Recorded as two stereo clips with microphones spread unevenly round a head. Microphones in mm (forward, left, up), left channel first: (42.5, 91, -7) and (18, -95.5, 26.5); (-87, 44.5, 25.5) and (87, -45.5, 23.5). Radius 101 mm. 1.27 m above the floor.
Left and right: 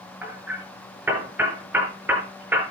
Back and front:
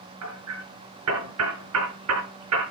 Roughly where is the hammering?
Ahead.